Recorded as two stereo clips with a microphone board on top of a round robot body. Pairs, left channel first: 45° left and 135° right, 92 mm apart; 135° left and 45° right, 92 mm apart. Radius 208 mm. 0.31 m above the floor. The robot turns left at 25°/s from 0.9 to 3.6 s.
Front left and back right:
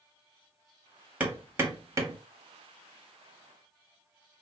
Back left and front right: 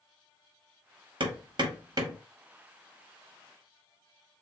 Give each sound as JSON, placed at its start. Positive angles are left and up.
{"t": 1.2, "sound": "hammering", "azimuth_deg": -60, "distance_m": 1.1}